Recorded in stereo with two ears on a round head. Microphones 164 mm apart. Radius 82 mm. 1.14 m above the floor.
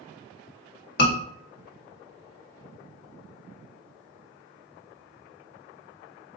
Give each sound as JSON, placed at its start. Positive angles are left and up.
{"t": 1.0, "sound": "a scream", "side_deg": 60, "distance_m": 1.6}